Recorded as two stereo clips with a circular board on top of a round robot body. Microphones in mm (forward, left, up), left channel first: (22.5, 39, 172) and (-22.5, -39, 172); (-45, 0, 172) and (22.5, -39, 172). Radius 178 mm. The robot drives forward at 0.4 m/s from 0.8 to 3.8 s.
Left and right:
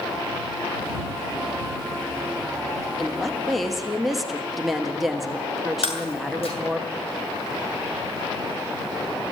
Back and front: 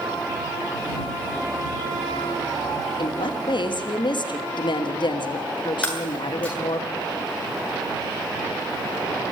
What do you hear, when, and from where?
3.0 s a woman speaking: 145° left, 2.5 m; by 6.8 s 150° left, 3 m
5.8 s breaking glass: 75° left, 7.5 m